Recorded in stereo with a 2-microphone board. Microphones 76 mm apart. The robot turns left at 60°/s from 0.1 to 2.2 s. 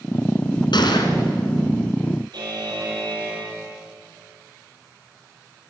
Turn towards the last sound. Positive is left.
turn(degrees=-75)  # may be behind; listen again after turning